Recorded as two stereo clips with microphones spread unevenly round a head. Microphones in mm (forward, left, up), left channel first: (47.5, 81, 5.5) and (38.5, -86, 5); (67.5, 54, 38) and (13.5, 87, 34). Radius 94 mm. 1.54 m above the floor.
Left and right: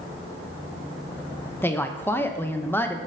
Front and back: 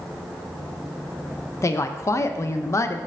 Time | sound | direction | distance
1.6 | a woman speaking | 10° left | 0.6 m